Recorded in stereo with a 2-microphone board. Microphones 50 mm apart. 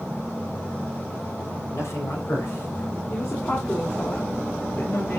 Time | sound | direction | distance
1.7 | a man speaking | 70° left (ahead or behind) | 4.5 m
3.1 | a woman speaking | 60° left (ahead or behind) | 2.5 m